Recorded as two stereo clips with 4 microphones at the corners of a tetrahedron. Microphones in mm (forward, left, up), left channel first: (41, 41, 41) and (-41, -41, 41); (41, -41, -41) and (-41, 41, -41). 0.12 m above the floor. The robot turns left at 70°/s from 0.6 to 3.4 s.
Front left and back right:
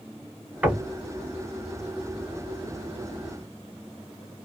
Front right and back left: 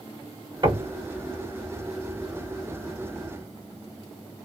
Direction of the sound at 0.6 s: 150° left.